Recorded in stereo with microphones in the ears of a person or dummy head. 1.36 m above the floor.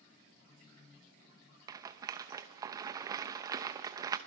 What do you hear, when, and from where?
1.7 s a rattle: 15° right (ahead or behind), 0.8 m